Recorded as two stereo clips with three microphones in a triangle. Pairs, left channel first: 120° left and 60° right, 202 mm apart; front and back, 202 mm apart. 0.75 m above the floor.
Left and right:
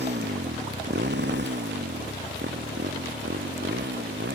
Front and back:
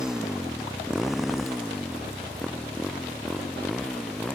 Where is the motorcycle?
95° right; by 4.3 s 90° right.